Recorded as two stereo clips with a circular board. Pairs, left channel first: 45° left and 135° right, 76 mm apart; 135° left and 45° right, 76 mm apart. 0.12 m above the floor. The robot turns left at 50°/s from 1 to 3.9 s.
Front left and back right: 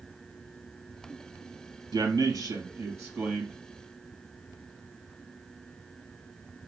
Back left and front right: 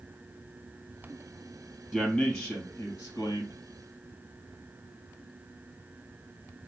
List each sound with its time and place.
1.9 s a man speaking: 130° right, 2.5 m; by 3.6 s 150° left, 2.5 m